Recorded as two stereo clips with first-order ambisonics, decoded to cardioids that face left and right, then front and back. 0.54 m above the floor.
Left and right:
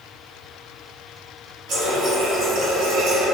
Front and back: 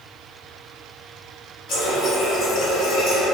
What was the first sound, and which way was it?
A running tap, 40° right.